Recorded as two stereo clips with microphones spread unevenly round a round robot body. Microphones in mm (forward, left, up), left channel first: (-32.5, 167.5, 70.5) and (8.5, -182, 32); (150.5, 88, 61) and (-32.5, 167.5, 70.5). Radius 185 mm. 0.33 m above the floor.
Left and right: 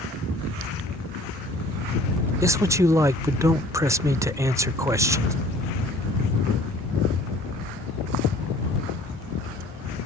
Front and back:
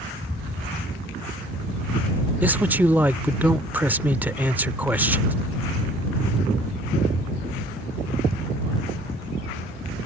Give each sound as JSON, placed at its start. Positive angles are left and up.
{"t": 2.4, "sound": "a man speaking", "azimuth_deg": -130}